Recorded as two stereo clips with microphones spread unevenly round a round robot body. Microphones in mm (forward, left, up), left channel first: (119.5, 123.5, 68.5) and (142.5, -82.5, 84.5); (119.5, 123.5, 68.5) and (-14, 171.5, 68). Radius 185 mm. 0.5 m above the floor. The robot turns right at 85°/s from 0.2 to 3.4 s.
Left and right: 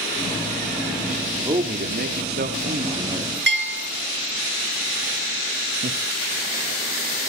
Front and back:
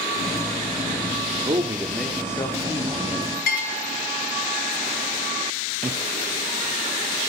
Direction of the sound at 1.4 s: 160° right.